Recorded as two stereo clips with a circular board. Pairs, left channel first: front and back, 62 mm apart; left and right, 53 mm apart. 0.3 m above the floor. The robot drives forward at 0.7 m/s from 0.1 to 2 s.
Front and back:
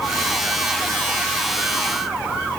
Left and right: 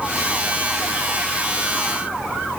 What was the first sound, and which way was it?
Only background noise.